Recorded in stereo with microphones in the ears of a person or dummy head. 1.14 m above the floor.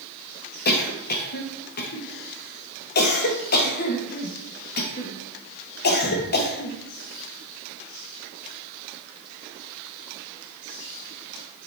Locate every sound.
0.7 s a cough: 50° left (ahead or behind), 1.1 m